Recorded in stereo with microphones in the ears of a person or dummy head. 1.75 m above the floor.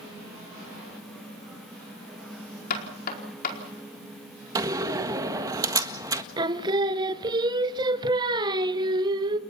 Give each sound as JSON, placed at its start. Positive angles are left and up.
{"t": 2.7, "sound": "knocking", "side_deg": 50, "distance_m": 4.5}
{"t": 4.5, "sound": "a door slam", "side_deg": -20, "distance_m": 1.6}
{"t": 6.4, "sound": "singing", "side_deg": -25, "distance_m": 1.1}